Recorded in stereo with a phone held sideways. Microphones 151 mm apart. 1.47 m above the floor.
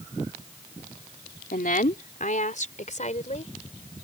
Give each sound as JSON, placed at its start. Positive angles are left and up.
{"t": 1.5, "sound": "a woman speaking", "side_deg": 70}